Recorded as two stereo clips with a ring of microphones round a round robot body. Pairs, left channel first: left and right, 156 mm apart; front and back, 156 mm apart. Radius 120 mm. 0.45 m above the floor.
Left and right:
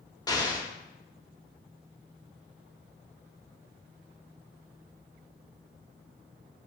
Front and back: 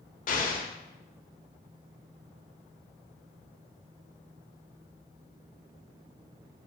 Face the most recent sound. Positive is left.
turn(degrees=25)